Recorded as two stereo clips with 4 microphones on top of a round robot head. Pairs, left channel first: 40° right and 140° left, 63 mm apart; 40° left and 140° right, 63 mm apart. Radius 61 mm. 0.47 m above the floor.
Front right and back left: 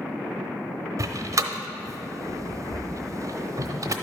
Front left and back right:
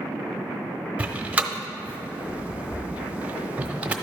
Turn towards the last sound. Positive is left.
turn(degrees=155)